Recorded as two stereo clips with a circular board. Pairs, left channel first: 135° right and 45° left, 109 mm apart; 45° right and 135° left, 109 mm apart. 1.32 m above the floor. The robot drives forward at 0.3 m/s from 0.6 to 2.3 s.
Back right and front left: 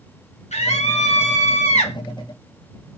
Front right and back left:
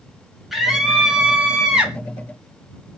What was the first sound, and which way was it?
A scream, 140° right.